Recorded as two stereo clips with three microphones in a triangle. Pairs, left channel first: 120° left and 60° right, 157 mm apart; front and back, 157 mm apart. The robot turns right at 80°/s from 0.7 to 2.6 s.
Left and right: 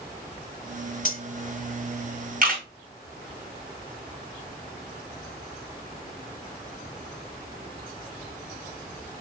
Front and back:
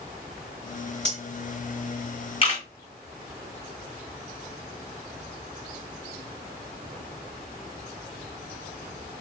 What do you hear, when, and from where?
1.1 s cutlery clinking: 135° left, 1.4 m; by 1.2 s 145° left, 1.4 m
2.4 s a camera shutter: 50° right, 3 m; by 2.6 s 35° right, 3 m